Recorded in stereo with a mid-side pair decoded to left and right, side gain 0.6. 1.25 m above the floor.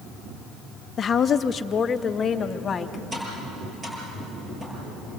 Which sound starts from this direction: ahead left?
A woman speaking, at 1.0 s.